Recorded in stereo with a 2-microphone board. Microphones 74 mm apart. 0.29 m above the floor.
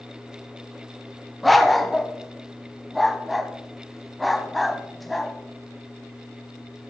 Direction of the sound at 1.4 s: Centre (ahead or behind).